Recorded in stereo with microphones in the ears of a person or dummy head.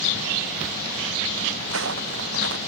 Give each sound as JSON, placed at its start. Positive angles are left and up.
{"t": 1.6, "sound": "footsteps", "side_deg": -70}